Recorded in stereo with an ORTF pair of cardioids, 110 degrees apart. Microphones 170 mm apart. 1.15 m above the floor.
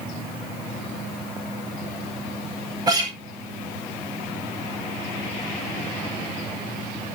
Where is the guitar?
25° right, 4.5 m.